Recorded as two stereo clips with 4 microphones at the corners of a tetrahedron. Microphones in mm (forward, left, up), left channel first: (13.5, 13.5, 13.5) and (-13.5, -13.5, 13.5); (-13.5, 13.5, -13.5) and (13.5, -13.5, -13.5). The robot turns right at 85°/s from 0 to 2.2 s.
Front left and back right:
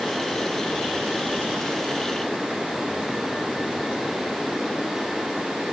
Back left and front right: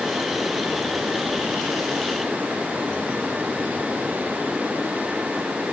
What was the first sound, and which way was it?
Only background noise.